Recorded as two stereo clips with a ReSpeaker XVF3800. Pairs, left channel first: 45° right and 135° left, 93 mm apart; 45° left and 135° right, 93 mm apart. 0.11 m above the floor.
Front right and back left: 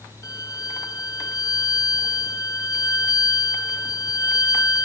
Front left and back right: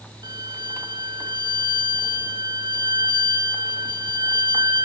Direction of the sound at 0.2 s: 100° right.